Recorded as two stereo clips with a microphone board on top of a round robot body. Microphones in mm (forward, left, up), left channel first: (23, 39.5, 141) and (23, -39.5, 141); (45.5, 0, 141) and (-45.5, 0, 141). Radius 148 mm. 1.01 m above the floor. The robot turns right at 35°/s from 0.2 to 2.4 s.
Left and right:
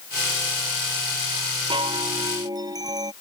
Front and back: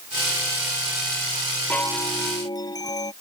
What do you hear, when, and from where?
1.7 s a chime: 75° right; by 3.1 s 50° right